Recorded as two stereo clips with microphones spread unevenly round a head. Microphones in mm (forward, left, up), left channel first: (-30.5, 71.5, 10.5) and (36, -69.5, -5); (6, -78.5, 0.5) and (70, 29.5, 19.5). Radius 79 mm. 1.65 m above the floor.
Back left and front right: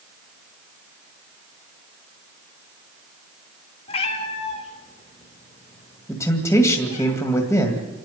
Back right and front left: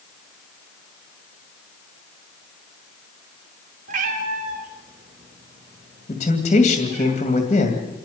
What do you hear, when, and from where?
3.9 s a cat meowing: 65° left, 2 m
6.1 s a man speaking: 170° right, 2 m